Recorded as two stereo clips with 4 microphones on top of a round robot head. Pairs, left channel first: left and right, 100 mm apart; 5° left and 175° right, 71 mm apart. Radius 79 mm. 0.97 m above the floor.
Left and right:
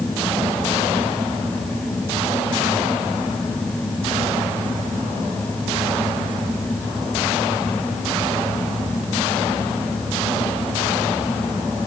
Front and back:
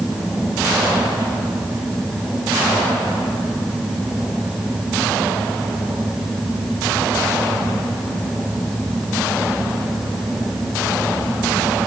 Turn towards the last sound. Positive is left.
No sound to turn to.